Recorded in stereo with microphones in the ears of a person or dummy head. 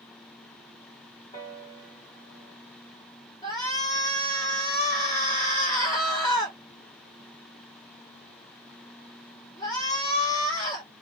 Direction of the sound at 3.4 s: 20° left (ahead or behind).